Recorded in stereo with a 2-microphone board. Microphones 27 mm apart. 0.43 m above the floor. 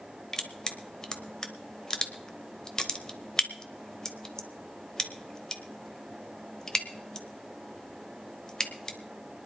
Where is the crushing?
25° left (ahead or behind), 1.0 m.